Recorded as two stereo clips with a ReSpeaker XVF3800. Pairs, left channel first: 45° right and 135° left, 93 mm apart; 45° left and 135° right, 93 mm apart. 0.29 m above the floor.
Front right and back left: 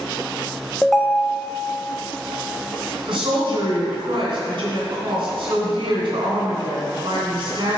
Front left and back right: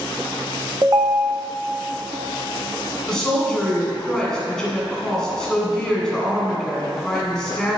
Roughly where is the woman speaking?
Behind left.